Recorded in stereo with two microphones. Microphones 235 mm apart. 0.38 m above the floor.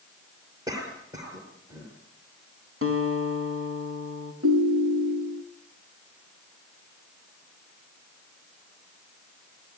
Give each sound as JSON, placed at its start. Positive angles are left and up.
{"t": 0.7, "sound": "a cough", "side_deg": -15, "distance_m": 6.5}
{"t": 2.8, "sound": "a guitar", "side_deg": -70, "distance_m": 4.0}
{"t": 4.4, "sound": "a ringtone", "side_deg": -75, "distance_m": 3.0}